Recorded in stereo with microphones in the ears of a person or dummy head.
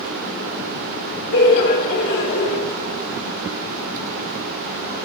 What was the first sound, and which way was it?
Laughter, 55° left (ahead or behind).